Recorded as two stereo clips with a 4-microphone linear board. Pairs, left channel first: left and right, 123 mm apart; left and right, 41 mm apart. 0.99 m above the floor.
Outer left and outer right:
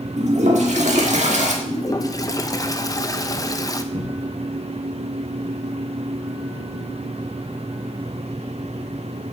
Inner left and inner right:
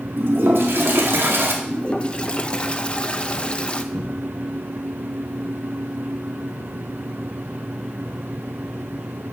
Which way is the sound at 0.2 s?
75° right (ahead or behind).